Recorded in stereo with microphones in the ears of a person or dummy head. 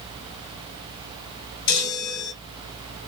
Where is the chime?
50° left (ahead or behind), 2 m.